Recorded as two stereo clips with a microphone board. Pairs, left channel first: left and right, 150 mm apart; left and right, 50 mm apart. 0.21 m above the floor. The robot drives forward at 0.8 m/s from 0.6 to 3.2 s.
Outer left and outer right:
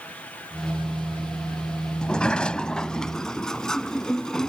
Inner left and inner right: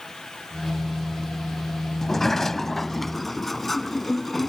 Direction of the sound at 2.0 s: 5° left (ahead or behind).